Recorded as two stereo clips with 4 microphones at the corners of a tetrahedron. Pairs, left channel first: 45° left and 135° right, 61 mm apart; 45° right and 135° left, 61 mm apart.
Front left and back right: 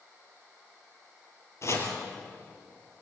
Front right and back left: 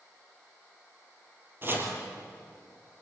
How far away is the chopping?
About 3.5 m.